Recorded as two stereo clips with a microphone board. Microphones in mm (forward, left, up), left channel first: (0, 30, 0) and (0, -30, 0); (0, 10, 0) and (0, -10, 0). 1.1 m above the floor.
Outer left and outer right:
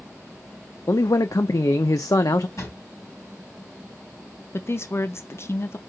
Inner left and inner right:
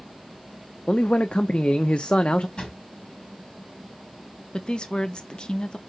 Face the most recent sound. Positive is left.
turn(degrees=45)  # may be behind; listen again after turning